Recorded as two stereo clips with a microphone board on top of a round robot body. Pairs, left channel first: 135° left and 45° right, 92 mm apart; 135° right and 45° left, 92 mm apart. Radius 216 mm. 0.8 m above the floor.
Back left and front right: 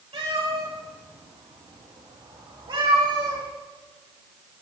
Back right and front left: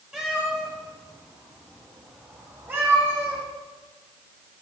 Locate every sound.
0.1 s a cat meowing: 40° right, 6.5 m; by 3.4 s 20° right, 9 m